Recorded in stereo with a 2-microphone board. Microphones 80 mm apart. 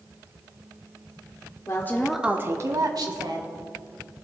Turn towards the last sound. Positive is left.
turn(degrees=-65)  # may be behind; listen again after turning